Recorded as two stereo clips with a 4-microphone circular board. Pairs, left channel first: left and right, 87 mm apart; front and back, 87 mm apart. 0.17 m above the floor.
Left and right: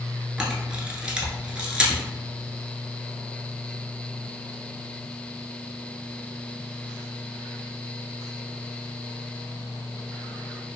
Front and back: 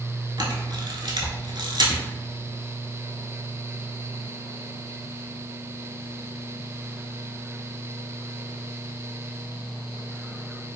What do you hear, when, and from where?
0.4 s a camera shutter: 170° right, 0.6 m